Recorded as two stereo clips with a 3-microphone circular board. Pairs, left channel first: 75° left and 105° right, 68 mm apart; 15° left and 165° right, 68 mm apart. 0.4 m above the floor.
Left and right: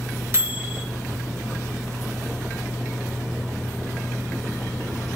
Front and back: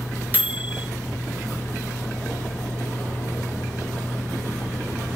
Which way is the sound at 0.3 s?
120° right.